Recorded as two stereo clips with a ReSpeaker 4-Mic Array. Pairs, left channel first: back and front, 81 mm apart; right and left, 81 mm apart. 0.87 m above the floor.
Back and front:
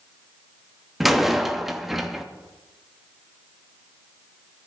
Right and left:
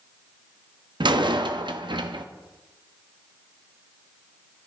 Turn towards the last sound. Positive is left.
turn(degrees=85)